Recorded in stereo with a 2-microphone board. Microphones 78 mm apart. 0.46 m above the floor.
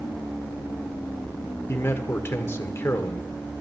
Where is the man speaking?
30° left (ahead or behind), 1.2 m.